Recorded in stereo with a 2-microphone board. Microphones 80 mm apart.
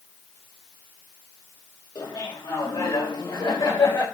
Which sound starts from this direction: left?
Laughter, at 1.9 s.